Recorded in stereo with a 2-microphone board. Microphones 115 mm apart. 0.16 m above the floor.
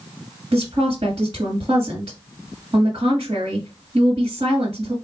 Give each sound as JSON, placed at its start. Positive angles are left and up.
{"t": 0.5, "sound": "a woman speaking", "side_deg": -40, "distance_m": 1.7}